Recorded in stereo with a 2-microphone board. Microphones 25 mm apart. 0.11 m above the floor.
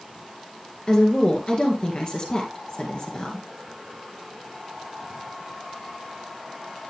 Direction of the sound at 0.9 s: 40° left (ahead or behind).